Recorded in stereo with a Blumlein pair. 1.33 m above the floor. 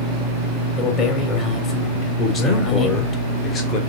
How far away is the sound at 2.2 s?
About 3 m.